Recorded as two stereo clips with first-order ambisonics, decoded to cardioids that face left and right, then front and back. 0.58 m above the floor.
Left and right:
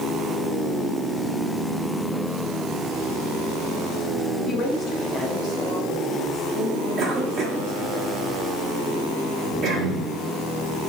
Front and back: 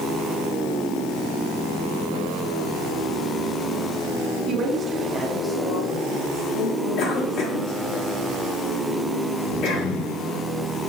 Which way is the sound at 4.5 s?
145° left.